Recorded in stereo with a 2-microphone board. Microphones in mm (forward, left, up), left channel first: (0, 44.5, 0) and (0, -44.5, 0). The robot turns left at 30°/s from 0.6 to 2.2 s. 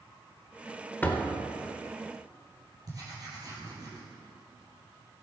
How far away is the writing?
About 3 m.